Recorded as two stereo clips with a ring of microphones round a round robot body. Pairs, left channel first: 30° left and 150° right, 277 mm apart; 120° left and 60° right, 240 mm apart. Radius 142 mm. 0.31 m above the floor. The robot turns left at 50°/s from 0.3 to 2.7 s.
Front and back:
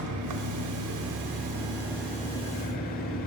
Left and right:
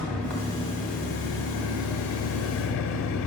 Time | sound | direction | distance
0.0 | an engine running | 150° right | 0.7 m